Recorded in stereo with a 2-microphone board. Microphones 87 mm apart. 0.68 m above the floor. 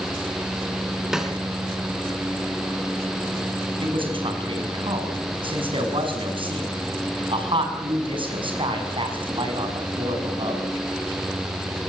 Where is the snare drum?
10° right (ahead or behind), 3.5 m.